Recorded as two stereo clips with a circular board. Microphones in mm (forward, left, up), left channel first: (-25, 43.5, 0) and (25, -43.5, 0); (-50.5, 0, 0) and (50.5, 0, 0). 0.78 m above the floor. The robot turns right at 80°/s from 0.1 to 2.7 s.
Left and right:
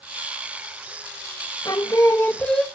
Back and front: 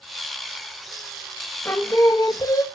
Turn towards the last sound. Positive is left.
turn(degrees=-150)